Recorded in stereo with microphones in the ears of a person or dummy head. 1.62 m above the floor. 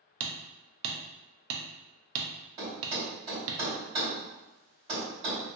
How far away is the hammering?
About 0.5 m.